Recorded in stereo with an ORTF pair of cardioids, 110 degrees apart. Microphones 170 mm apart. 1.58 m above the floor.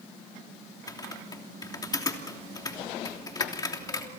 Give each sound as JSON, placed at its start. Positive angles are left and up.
{"t": 0.9, "sound": "typing on a keyboard", "azimuth_deg": 25, "distance_m": 3.0}